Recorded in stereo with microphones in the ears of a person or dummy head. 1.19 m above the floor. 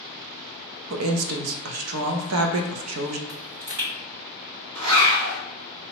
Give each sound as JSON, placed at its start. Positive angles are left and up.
{"t": 0.9, "sound": "a woman speaking", "side_deg": -85, "distance_m": 0.5}
{"t": 3.3, "sound": "a pop", "side_deg": -70, "distance_m": 1.8}
{"t": 4.8, "sound": "a zipper", "side_deg": -75, "distance_m": 1.1}